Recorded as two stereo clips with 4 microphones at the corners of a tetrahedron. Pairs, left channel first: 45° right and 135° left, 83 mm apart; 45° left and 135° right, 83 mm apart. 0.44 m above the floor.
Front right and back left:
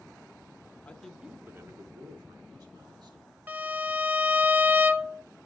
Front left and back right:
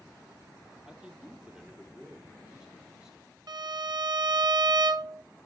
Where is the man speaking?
70° right, 1.0 m; by 3.4 s 145° left, 3.5 m.